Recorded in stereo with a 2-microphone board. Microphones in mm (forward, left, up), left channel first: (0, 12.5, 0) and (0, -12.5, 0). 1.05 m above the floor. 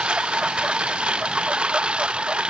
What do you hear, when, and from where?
0.0 s a lawn mower: 45° right (ahead or behind)